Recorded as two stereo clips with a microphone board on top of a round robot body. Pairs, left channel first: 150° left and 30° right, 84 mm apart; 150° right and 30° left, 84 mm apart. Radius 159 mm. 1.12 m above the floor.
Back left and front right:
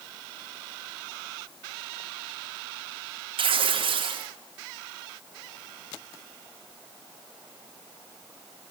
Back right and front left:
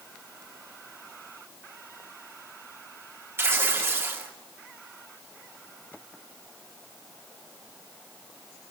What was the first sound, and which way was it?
Tearing paper, 30° right.